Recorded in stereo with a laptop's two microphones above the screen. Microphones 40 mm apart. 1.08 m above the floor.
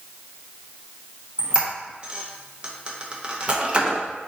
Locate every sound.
1.4 s a squeak: 30° right (ahead or behind), 0.5 m